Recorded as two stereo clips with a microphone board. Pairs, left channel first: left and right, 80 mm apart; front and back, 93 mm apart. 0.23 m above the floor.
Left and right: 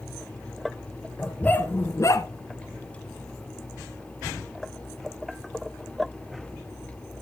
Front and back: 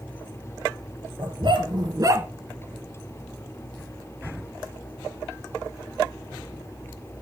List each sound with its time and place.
1.2 s a dog barking: 160° left, 1.7 m; by 2.3 s 115° left, 0.8 m